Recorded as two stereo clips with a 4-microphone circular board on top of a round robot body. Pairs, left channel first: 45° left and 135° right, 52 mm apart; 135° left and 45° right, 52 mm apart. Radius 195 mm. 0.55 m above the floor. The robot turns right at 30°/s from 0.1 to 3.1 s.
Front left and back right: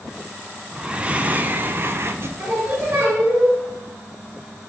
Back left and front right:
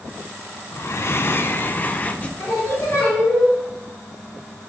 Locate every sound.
0.7 s breathing: 150° left, 0.5 m; by 2.3 s 160° right, 0.5 m
2.4 s singing: 175° left, 1.7 m; by 3.5 s 165° right, 1.7 m